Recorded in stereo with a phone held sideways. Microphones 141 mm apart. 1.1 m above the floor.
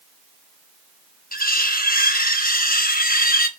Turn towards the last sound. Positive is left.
turn(degrees=80)